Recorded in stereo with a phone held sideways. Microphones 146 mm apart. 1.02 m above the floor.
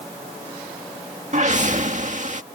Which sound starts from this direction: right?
A whoosh, at 1.3 s.